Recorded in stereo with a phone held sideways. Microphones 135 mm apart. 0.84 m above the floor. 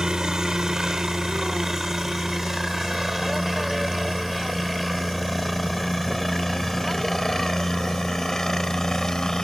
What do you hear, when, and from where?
0.0 s a helicopter: 5° right (ahead or behind); by 9.4 s 5° left (ahead or behind)